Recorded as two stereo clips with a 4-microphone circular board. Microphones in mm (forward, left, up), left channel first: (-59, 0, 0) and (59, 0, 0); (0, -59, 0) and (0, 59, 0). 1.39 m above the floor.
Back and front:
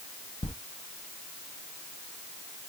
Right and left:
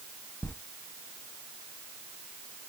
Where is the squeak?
160° right, 0.5 m.